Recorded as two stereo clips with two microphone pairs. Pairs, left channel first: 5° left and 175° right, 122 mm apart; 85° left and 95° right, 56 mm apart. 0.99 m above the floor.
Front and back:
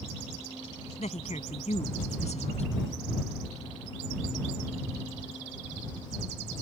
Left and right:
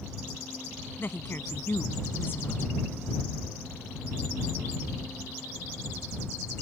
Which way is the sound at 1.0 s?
30° left.